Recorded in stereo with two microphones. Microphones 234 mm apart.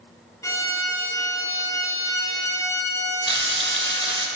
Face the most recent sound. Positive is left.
turn(degrees=-55)  # may be behind; listen again after turning